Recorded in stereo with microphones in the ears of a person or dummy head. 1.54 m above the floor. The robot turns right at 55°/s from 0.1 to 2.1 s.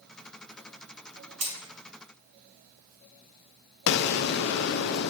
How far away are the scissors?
No scissors in this recording.